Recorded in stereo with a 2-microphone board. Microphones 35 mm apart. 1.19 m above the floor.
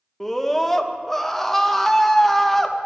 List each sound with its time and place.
0.2 s a scream: 5° left (ahead or behind), 0.9 m